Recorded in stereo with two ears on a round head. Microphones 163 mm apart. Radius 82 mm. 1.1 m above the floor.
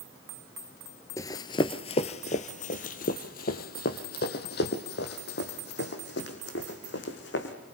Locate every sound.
1.2 s running footsteps: 15° left (ahead or behind), 1.1 m; by 7.5 s 65° left (ahead or behind), 4 m